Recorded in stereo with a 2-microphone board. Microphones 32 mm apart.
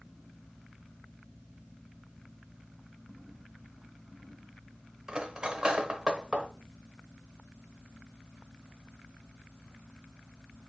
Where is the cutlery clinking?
25° right (ahead or behind), 0.7 m.